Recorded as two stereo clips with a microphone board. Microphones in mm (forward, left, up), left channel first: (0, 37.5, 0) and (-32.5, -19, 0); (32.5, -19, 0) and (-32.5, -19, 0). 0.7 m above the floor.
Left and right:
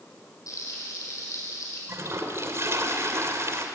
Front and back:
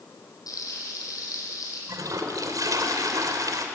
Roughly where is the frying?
Ahead left.